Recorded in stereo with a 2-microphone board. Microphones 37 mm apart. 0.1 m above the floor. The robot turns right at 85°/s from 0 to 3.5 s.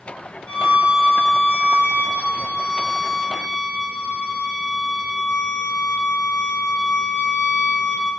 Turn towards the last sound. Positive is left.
turn(degrees=30)